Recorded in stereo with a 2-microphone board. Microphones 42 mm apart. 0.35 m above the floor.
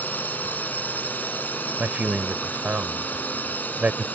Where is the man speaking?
40° right (ahead or behind).